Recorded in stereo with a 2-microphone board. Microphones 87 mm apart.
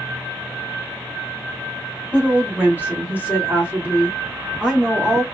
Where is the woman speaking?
15° right (ahead or behind), 1.4 m.